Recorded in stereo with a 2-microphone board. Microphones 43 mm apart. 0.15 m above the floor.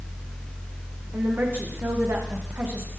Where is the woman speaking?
60° right (ahead or behind), 9 m.